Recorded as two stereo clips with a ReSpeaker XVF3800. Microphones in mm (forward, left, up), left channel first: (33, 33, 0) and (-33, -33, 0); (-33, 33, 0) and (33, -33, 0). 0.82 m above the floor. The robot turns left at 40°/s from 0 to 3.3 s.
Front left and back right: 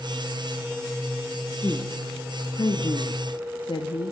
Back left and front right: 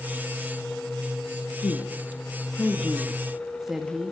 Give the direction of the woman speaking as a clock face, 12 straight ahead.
8 o'clock.